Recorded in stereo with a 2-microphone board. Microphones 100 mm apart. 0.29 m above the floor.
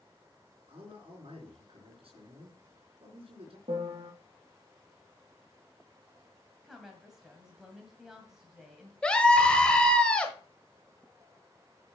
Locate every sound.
0.7 s a man speaking: 70° right (ahead or behind), 4 m
3.7 s a piano: 85° right, 2.5 m
6.6 s a woman speaking: 5° right (ahead or behind), 1.9 m
9.0 s a scream: 10° left (ahead or behind), 1.0 m